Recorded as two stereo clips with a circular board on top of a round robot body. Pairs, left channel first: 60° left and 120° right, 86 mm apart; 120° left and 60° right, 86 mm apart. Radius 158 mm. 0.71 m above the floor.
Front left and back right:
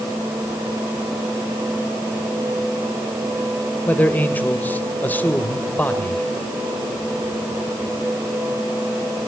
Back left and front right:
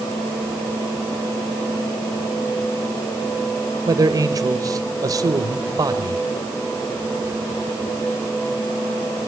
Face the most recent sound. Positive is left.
turn(degrees=-10)